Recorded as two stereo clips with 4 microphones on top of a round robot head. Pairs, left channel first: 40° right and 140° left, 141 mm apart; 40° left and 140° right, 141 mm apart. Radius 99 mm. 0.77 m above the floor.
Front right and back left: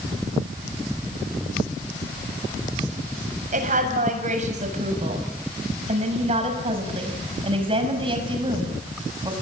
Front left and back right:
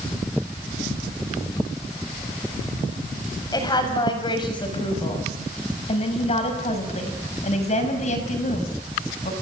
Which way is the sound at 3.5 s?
105° left.